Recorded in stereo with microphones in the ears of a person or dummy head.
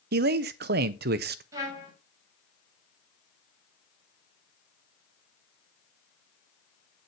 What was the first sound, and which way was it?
A man speaking, 50° right (ahead or behind).